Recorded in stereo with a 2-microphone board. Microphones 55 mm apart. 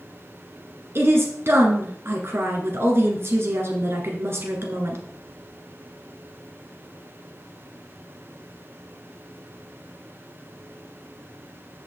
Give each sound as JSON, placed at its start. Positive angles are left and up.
{"t": 0.9, "sound": "a woman speaking", "side_deg": -50, "distance_m": 1.8}